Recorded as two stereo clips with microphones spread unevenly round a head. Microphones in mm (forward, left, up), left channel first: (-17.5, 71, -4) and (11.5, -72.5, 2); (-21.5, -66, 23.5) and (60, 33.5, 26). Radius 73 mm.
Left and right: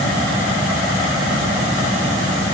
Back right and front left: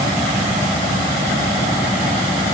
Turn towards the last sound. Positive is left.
No sound to turn to.